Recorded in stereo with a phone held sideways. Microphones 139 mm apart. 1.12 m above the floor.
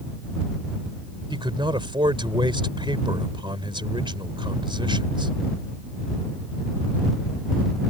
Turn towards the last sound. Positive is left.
turn(degrees=-35)  # may be behind; listen again after turning